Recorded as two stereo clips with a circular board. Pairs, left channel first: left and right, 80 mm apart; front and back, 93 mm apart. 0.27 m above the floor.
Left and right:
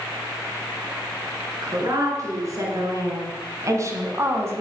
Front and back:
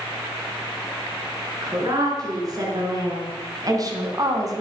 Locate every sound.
1.6 s a woman speaking: 135° right, 5 m; by 4.6 s 140° right, 2.5 m